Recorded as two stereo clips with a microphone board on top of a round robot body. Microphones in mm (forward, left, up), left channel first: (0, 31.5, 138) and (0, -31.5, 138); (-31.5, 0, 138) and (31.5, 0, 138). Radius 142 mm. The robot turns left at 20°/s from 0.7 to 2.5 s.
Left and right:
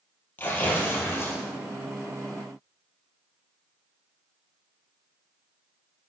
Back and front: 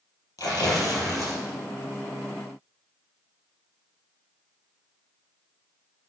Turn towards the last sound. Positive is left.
turn(degrees=115)